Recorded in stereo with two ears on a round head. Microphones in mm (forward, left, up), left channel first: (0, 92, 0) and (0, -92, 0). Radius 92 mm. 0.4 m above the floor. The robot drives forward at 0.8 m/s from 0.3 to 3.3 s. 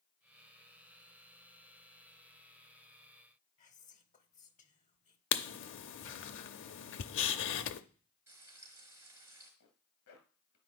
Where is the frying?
10° right (ahead or behind), 4.5 m.